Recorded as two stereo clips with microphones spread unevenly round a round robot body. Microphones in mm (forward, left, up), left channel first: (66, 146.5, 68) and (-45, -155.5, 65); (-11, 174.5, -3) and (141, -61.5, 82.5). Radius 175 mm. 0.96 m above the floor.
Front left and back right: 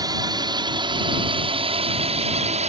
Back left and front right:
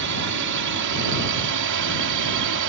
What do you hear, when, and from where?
0.0 s a drone: 35° right; by 2.7 s 45° right